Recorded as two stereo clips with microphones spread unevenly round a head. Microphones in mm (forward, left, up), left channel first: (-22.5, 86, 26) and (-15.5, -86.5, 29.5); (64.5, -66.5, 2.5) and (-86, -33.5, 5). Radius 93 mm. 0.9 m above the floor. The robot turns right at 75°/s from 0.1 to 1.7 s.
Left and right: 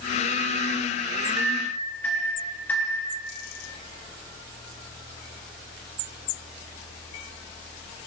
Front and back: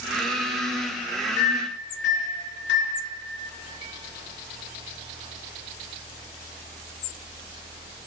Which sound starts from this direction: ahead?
A microwave, at 1.4 s.